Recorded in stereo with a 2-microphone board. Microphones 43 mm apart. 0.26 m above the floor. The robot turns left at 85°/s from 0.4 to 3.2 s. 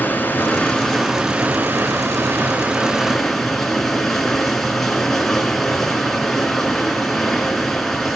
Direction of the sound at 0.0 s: 55° left.